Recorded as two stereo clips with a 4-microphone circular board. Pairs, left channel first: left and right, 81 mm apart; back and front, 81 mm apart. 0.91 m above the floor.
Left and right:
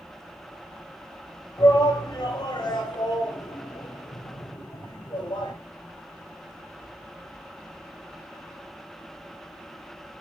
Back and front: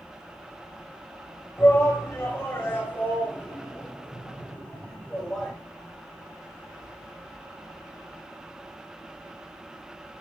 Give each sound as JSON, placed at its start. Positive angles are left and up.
{"t": 1.6, "sound": "a shout", "azimuth_deg": 125, "distance_m": 5.5}